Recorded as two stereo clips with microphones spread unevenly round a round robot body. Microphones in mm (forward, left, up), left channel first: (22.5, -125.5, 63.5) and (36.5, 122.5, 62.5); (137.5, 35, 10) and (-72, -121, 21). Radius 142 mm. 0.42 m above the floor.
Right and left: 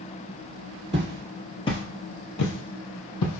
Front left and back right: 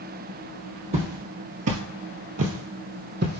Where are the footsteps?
155° left, 0.7 m; by 3.4 s 95° right, 1.2 m.